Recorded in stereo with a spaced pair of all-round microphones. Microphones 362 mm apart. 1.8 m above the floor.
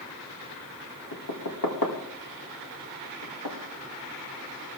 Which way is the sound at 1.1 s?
70° left (ahead or behind).